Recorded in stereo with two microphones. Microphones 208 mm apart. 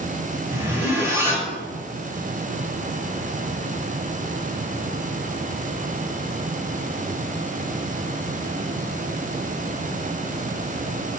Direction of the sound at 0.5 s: 10° right (ahead or behind).